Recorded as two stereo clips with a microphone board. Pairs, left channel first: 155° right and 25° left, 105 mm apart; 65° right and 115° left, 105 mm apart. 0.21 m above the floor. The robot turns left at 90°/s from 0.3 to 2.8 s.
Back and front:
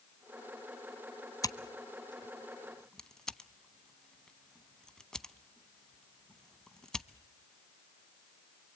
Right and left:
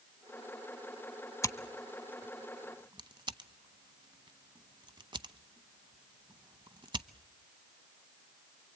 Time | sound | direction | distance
1.4 | scissors | 115° right | 0.7 m